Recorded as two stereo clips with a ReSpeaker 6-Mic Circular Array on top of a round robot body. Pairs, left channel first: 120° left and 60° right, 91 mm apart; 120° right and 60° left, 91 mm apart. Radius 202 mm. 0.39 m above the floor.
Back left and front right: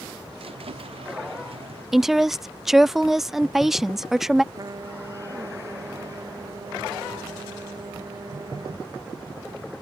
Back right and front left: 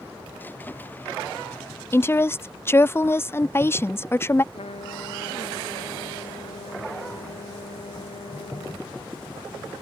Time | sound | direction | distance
0.4 | a squeak | 50° right | ?
1.9 | a woman speaking | 145° right | ?
4.5 | a trumpet | 110° right | ?